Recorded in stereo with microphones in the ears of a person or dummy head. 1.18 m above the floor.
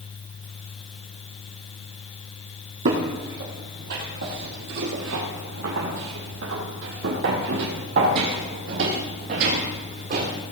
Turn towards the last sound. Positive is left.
turn(degrees=-50)  # may be behind; listen again after turning